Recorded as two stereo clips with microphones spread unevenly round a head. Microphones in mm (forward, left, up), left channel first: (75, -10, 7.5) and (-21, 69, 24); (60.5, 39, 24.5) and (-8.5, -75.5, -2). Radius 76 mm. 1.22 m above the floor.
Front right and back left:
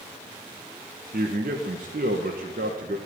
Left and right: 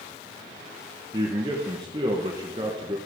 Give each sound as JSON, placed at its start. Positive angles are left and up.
{"t": 1.1, "sound": "a man speaking", "azimuth_deg": 180, "distance_m": 1.0}